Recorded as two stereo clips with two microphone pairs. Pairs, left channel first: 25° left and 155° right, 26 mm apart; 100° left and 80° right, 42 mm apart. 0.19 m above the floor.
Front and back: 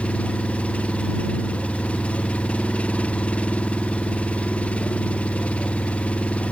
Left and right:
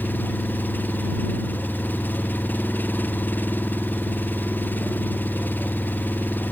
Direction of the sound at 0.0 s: 60° left.